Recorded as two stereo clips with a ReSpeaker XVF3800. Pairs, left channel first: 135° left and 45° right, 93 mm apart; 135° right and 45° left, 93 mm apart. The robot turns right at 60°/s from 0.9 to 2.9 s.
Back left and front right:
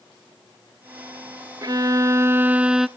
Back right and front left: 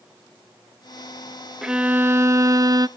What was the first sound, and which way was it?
A violin, 35° right.